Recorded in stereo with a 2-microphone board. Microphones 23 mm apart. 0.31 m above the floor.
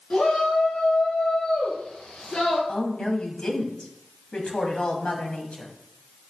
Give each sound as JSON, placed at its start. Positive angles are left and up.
{"t": 0.1, "sound": "a shout", "side_deg": 50, "distance_m": 4.5}
{"t": 2.7, "sound": "a woman speaking", "side_deg": 45, "distance_m": 2.5}